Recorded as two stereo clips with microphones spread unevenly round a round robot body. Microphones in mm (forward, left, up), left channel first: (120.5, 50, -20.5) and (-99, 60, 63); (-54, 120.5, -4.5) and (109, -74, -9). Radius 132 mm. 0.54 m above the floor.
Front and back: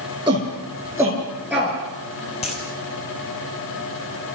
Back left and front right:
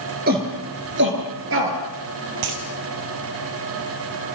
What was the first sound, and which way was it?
A shout, 105° right.